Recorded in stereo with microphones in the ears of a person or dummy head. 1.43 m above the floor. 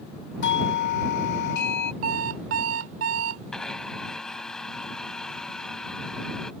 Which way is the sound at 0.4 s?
60° left (ahead or behind).